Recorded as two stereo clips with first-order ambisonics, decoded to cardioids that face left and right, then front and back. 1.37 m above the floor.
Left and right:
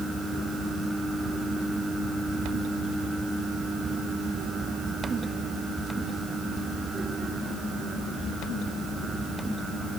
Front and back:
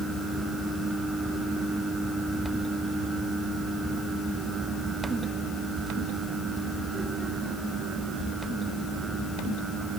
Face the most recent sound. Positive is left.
No sound to turn to.